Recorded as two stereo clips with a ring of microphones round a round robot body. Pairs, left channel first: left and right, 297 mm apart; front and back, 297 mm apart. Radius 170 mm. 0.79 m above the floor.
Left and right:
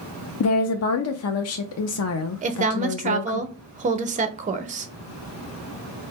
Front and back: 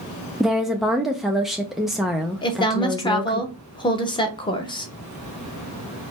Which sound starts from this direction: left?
A woman speaking, at 0.4 s.